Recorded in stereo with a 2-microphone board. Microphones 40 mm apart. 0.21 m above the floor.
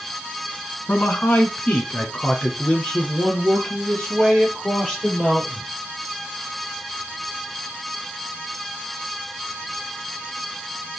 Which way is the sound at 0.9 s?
50° left (ahead or behind).